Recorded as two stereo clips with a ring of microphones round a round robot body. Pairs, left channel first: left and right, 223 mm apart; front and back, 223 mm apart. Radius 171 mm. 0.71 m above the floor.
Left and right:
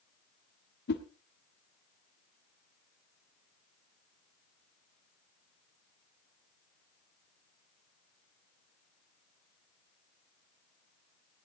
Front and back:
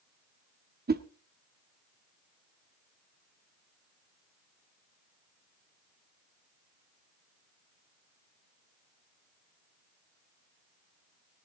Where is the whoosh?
135° left, 1.4 m.